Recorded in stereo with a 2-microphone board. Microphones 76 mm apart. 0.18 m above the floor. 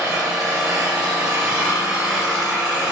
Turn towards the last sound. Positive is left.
turn(degrees=-5)  # may be behind; listen again after turning